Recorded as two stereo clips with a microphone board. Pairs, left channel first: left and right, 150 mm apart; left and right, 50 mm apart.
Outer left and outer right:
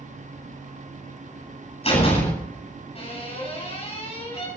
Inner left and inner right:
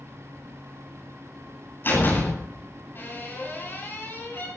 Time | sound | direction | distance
1.8 | a door slam | 45° left (ahead or behind) | 10 m